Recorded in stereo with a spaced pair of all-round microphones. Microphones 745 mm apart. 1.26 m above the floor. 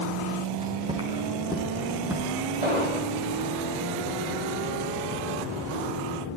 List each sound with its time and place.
0.5 s footsteps: 10° right (ahead or behind), 9 m; by 2.4 s centre (ahead or behind), 9.5 m
2.6 s an explosion: 55° right (ahead or behind), 7.5 m